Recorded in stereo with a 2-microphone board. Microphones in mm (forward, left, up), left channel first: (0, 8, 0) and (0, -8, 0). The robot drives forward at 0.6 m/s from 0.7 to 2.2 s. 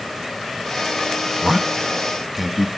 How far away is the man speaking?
About 0.7 m.